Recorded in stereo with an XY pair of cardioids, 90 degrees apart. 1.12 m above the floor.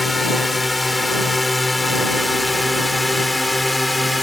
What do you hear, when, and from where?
0.0 s a drone: 15° left; by 4.2 s 10° left